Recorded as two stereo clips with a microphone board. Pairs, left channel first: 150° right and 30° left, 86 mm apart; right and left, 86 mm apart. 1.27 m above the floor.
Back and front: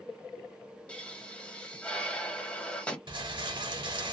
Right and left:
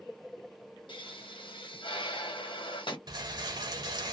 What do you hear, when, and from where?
0.9 s a pop: 75° right, 1.1 m
3.1 s a rattle: 55° left, 0.8 m